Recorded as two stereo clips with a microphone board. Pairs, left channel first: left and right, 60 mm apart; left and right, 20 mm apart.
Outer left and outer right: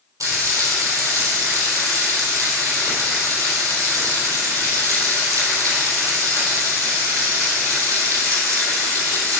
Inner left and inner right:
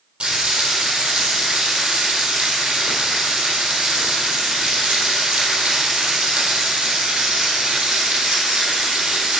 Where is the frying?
60° right (ahead or behind), 3.5 m.